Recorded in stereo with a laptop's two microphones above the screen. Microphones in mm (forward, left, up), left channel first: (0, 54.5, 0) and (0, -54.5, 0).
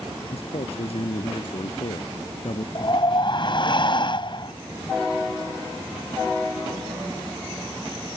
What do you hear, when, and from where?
0.3 s a man speaking: 65° left (ahead or behind)
2.8 s a whoosh: 50° left (ahead or behind)